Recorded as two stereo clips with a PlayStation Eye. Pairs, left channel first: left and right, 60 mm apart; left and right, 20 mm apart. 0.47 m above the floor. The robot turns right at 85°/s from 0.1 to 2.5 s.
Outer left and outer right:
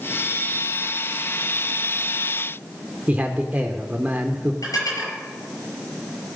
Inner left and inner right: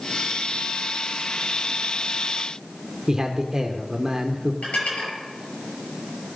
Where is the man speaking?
25° right (ahead or behind), 0.9 m.